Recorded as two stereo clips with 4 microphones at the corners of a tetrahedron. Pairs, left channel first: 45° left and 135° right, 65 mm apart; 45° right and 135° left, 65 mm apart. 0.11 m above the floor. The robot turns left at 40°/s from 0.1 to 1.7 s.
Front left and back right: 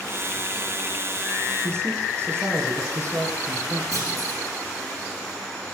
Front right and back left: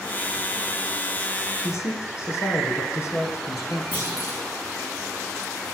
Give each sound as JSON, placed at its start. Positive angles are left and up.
{"t": 1.6, "sound": "a man speaking", "azimuth_deg": -85, "distance_m": 5.0}
{"t": 3.9, "sound": "a clunk", "azimuth_deg": -105, "distance_m": 10.0}